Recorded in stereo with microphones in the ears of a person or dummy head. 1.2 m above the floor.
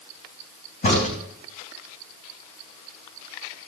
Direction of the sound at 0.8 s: 45° left (ahead or behind).